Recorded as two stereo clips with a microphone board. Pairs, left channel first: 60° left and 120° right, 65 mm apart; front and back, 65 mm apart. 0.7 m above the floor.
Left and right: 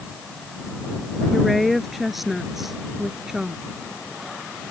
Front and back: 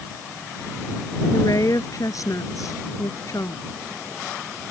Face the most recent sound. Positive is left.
turn(degrees=-35)